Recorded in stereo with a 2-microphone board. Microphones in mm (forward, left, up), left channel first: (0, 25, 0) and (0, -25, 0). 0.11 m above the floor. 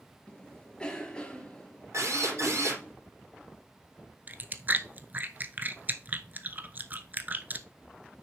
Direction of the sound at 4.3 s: 35° right (ahead or behind).